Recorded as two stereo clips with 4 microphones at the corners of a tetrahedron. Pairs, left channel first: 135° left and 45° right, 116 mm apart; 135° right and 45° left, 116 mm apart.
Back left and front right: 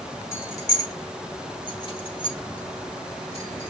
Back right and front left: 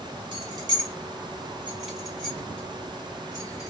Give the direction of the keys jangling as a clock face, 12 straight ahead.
9 o'clock.